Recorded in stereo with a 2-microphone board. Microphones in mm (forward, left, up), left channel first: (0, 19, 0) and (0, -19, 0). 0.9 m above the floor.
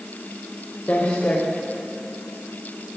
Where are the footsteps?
45° left (ahead or behind), 5.5 m.